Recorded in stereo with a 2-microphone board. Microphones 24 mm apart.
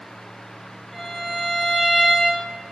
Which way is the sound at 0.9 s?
25° left (ahead or behind).